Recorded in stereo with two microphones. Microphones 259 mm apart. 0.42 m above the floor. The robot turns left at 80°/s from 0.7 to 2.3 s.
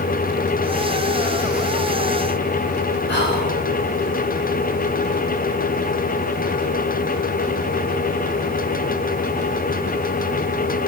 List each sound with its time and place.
3.1 s whispering: 45° left (ahead or behind), 1.9 m